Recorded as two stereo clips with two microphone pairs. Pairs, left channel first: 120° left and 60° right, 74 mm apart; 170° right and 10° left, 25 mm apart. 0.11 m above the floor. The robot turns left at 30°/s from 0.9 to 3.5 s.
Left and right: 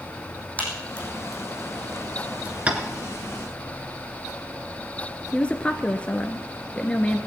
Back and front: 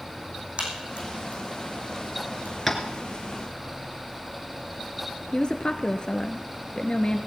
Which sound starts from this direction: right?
Tapping, at 2.7 s.